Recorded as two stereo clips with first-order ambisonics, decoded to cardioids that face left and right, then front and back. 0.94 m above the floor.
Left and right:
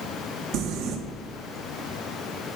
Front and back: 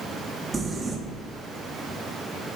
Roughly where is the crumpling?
Right.